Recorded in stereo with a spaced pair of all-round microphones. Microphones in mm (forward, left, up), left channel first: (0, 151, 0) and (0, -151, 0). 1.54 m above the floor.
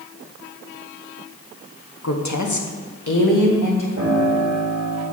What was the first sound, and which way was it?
A woman speaking, 55° left (ahead or behind).